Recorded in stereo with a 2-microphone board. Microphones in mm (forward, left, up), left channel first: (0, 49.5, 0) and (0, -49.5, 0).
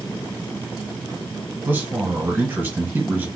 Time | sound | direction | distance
1.6 | a man speaking | 20° right (ahead or behind) | 1.2 m